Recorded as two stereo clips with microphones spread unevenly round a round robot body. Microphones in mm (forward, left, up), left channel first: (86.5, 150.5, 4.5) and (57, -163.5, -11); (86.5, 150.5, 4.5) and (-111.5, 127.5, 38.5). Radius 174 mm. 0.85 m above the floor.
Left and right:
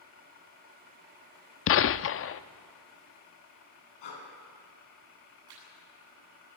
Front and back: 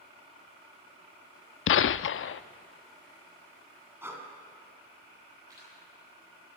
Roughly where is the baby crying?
No baby crying in this recording.